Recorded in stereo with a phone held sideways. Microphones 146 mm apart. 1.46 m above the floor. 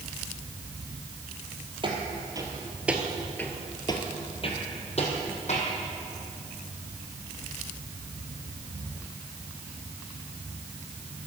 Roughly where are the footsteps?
Right.